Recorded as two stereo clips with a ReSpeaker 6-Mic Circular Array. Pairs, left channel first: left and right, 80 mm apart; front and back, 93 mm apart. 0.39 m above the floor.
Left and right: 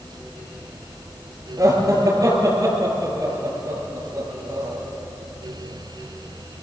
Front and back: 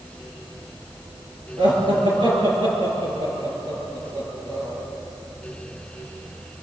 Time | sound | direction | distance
1.6 | laughter | 145° right | 7.5 m